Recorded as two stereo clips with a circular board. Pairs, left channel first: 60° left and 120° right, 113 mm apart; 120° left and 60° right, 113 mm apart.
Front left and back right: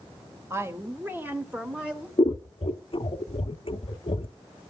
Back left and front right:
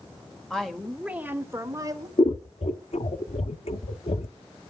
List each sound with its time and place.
0.5 s a woman speaking: 165° right, 1.3 m; by 2.1 s 35° right, 1.4 m
2.2 s scissors: 95° left, 0.7 m